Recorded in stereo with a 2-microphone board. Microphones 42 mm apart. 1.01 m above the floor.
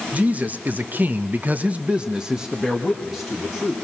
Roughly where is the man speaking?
Right.